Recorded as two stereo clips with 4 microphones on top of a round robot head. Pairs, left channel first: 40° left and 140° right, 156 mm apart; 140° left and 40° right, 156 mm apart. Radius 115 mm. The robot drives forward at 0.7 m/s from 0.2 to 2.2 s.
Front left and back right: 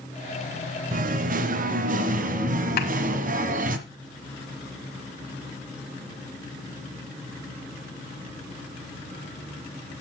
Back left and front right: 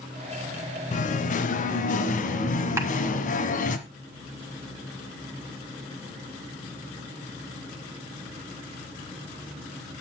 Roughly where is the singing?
Behind.